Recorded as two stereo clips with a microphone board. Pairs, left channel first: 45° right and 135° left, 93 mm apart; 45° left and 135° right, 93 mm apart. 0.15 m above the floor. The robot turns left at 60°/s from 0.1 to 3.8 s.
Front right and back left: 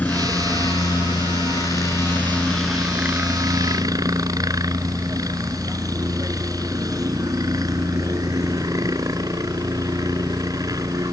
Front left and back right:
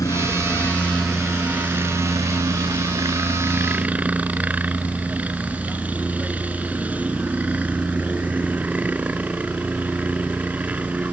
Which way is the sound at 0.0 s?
20° left.